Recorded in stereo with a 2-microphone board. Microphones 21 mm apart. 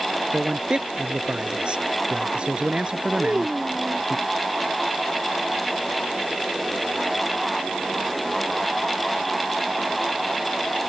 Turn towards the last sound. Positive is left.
turn(degrees=-45)  # may be behind; listen again after turning